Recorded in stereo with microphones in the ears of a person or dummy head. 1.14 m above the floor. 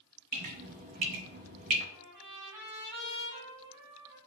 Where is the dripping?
35° right (ahead or behind), 0.6 m.